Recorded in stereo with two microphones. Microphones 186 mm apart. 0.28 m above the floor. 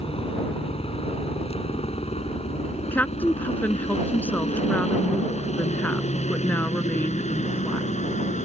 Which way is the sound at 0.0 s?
30° left (ahead or behind).